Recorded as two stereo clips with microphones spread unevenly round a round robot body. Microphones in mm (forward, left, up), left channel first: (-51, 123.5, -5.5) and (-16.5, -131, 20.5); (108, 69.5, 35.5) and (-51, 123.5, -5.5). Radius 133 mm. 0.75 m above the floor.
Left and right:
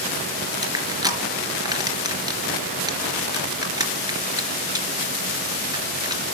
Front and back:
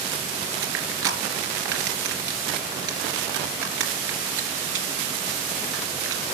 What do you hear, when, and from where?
0.6 s crushing: 155° right, 3.5 m